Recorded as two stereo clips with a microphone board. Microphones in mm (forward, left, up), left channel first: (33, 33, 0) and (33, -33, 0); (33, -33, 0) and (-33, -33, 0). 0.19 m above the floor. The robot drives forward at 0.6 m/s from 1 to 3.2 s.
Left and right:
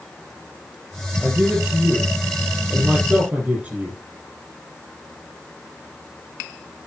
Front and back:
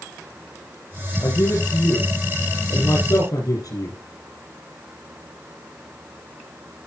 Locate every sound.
1.2 s a man speaking: 15° right, 7.5 m; by 4.0 s 20° right, 6.5 m